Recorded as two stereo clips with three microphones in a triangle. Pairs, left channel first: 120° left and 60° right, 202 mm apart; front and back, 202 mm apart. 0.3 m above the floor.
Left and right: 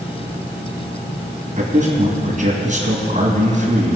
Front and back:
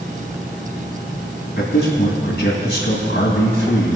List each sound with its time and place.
1.6 s a man speaking: 20° right, 2.5 m